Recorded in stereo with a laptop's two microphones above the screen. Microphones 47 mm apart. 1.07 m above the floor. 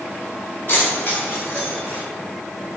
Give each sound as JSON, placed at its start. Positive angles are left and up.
{"t": 0.7, "sound": "keys jangling", "side_deg": 45, "distance_m": 3.0}